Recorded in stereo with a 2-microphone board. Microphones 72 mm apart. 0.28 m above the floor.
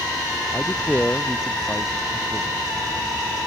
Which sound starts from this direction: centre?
A man speaking, at 0.5 s.